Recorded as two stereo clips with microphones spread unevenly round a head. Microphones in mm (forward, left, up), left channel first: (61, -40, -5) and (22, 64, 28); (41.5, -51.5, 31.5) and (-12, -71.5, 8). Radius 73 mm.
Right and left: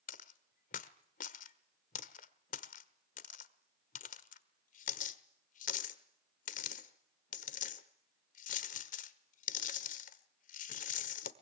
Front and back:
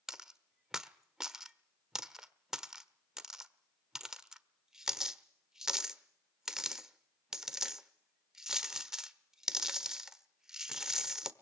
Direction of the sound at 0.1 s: 65° right.